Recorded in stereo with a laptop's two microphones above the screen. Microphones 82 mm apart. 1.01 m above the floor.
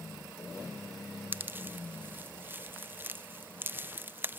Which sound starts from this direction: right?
A pop, at 1.3 s.